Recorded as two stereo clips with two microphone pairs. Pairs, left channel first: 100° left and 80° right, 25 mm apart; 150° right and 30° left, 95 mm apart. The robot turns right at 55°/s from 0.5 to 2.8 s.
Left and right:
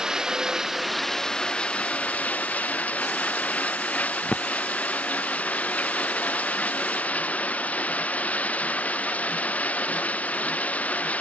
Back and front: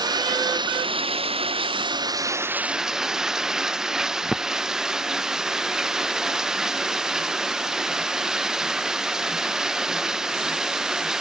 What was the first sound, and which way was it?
Running water, 10° right.